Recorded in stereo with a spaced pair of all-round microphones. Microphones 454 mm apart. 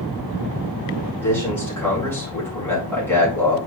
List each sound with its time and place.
1.2 s a man speaking: 5° left (ahead or behind), 4 m